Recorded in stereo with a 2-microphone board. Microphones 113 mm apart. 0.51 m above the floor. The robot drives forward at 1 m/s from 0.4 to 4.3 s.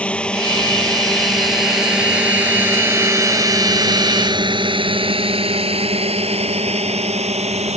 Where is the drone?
10° left (ahead or behind); by 7.8 s 80° right.